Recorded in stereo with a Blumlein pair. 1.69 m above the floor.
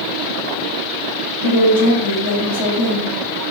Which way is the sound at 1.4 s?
60° left.